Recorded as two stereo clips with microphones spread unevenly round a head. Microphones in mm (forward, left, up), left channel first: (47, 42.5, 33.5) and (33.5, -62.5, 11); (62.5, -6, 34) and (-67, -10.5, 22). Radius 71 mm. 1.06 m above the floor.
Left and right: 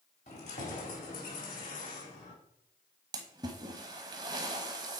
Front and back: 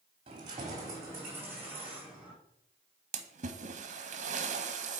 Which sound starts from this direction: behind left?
Keys jangling, at 0.3 s.